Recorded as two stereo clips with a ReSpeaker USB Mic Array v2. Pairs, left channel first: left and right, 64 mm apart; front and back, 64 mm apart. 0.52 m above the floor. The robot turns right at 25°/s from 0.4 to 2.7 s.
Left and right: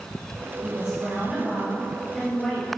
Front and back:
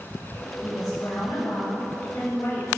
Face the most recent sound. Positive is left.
turn(degrees=30)